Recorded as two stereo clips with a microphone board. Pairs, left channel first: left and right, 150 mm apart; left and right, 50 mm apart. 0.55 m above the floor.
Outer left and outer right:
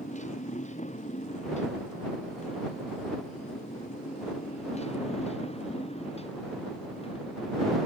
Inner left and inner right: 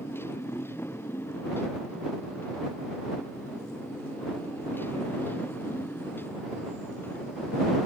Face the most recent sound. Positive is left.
turn(degrees=35)  # may be behind; listen again after turning